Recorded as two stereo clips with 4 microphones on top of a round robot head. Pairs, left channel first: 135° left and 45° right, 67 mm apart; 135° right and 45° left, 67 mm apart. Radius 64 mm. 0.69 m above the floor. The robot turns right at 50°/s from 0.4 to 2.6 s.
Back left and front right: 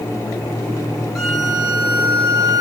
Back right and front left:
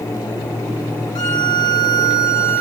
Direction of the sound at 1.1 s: 140° right.